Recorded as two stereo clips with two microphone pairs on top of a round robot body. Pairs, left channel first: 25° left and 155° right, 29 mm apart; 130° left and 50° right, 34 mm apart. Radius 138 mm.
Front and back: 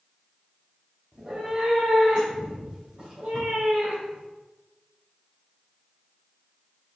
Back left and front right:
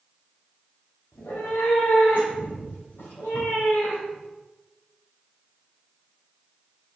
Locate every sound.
1.1 s a cat meowing: 130° left, 1.8 m; by 4.3 s 145° left, 4.5 m